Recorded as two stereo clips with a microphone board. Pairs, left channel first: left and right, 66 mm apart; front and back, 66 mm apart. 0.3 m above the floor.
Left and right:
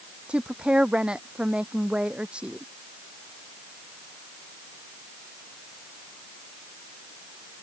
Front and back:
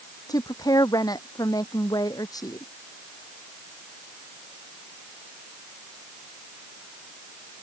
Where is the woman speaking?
15° right.